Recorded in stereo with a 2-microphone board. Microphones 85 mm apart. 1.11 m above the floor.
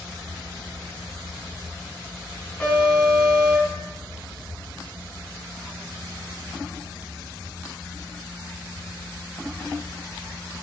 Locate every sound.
2.6 s an alarm: 25° left (ahead or behind), 3 m